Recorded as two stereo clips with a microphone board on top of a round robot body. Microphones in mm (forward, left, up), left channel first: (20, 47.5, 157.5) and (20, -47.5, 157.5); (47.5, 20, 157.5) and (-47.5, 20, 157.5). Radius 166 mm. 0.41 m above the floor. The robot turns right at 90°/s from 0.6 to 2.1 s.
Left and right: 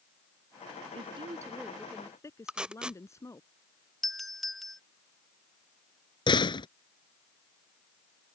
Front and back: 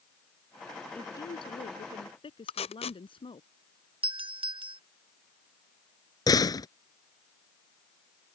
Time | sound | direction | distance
0.9 | a woman speaking | 75° right | ?
2.5 | tape being pulled | 10° right | ?
4.0 | a doorbell | straight behind | ?
6.3 | a door slam | 50° left | ?